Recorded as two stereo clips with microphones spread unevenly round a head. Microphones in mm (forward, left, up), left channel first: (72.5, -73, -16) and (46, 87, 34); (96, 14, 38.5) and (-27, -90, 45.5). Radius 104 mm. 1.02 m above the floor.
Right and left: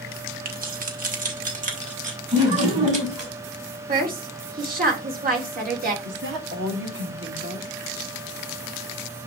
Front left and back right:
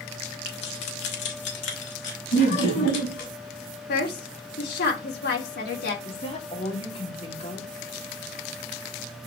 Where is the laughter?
50° left, 6 m.